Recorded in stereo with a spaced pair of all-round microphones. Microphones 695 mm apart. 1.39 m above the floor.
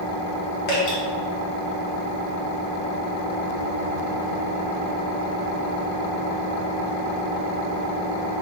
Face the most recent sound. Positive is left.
turn(degrees=70)  # may be behind; listen again after turning